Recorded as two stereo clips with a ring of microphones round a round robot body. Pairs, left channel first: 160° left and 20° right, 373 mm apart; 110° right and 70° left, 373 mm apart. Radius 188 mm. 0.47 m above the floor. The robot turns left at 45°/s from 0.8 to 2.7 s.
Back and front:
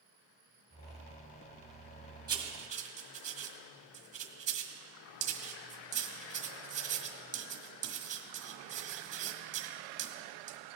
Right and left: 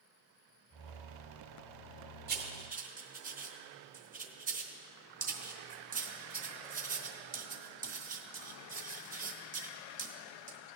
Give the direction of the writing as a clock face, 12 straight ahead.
11 o'clock.